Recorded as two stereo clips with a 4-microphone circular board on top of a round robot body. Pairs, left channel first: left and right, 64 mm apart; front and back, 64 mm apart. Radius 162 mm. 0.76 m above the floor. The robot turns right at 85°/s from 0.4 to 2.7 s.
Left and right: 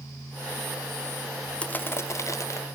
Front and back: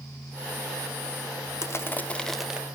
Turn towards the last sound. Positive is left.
turn(degrees=115)